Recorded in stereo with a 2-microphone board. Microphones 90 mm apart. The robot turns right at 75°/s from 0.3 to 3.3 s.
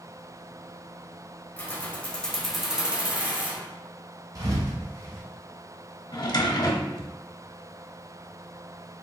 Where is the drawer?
55° left (ahead or behind), 0.7 m.